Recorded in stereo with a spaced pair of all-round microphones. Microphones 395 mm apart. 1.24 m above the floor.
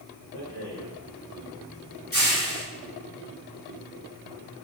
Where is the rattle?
35° left (ahead or behind), 1.2 m.